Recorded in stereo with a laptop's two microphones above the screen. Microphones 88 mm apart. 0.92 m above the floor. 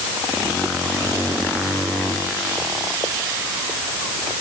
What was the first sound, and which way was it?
Only background noise.